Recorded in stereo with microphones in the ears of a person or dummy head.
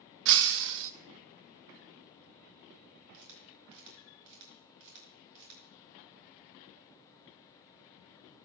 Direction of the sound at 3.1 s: 75° right (ahead or behind).